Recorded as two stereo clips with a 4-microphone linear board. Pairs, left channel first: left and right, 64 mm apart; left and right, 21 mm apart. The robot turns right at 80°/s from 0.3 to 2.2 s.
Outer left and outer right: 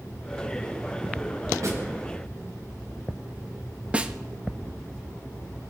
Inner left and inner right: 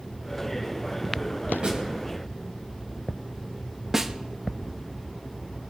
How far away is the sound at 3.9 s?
About 1.0 m.